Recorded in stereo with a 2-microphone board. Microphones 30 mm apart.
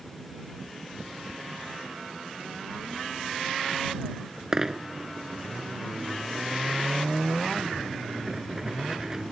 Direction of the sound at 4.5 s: 20° right (ahead or behind).